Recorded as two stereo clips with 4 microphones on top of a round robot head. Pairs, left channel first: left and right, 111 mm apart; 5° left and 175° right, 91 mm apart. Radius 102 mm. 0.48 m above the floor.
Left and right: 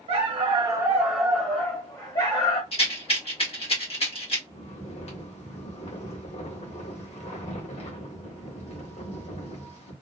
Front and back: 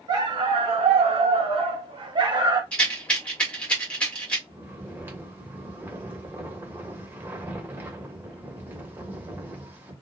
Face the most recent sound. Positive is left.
turn(degrees=115)